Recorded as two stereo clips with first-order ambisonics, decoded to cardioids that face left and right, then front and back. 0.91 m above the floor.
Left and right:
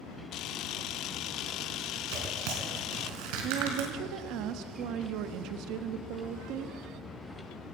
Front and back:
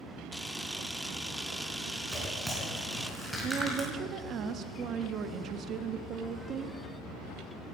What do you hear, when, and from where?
0.3 s a camera shutter: 90° left, 0.5 m
2.1 s tearing paper: 95° right, 4 m
3.4 s a woman speaking: 125° right, 1.1 m